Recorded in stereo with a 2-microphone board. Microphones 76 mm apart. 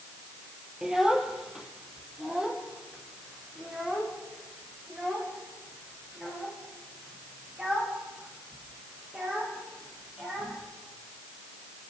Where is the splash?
No splash in this recording.